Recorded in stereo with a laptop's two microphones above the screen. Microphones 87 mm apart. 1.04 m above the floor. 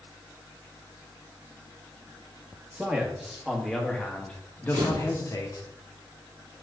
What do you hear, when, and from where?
2.7 s a man speaking: 15° right (ahead or behind), 2 m; by 5.7 s 50° left (ahead or behind), 1.3 m
4.7 s a camera shutter: 75° right (ahead or behind), 2.5 m